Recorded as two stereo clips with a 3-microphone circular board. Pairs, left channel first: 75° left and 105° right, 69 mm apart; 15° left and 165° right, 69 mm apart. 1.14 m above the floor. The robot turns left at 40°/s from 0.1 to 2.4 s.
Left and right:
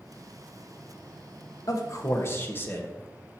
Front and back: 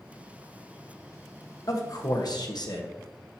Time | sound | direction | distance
1.7 | a man speaking | 45° left | 1.2 m